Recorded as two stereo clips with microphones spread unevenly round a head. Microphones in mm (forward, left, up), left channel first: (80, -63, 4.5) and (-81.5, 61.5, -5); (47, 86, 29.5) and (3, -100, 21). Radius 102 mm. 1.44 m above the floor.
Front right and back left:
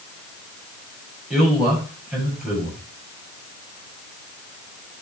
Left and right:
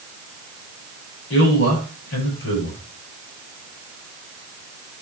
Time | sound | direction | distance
1.3 | a man speaking | 55° left | 7.5 m